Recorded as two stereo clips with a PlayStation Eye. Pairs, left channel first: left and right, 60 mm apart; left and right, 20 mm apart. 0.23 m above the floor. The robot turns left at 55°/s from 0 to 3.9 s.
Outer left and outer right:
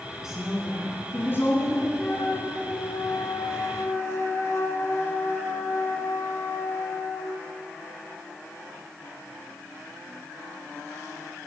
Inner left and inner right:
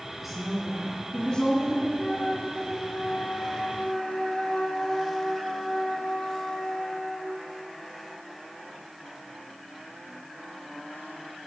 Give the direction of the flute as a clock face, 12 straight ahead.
7 o'clock.